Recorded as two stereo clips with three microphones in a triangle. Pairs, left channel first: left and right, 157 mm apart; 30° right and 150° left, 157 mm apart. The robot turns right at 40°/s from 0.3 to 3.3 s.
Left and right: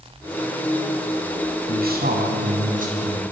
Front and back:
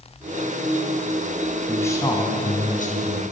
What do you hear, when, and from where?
1.7 s a man speaking: 110° right, 7 m; by 3.2 s 45° right, 7 m